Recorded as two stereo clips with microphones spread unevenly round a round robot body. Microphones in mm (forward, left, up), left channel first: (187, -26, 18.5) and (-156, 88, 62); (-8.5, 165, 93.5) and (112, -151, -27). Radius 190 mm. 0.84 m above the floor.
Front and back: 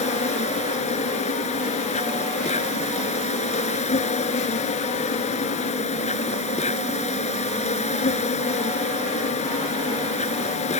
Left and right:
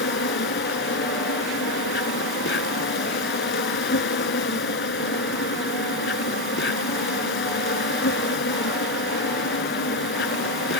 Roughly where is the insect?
Ahead left.